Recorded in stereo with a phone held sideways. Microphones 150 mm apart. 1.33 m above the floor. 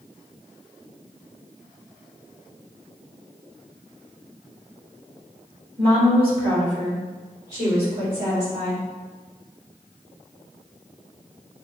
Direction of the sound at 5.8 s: 35° right (ahead or behind).